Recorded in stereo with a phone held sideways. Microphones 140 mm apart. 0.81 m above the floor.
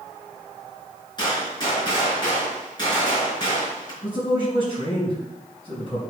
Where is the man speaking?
40° left (ahead or behind), 5 m.